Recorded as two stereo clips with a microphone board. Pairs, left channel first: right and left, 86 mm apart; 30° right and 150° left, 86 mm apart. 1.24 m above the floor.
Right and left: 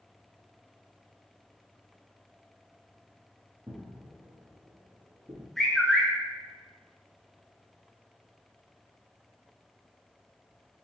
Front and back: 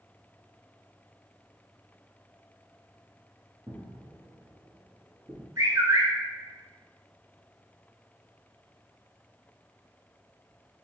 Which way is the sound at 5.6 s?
175° right.